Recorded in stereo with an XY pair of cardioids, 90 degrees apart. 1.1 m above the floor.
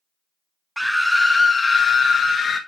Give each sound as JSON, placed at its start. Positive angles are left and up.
{"t": 0.8, "sound": "a scream", "azimuth_deg": 0, "distance_m": 0.8}